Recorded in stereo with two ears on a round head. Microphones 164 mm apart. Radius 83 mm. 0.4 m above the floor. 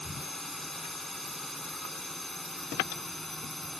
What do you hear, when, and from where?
0.0 s a drone: centre (ahead or behind)